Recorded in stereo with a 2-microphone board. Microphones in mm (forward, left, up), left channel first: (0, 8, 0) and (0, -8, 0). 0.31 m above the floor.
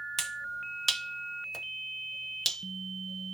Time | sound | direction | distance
0.2 | a finger snap | 15° left (ahead or behind) | 1.0 m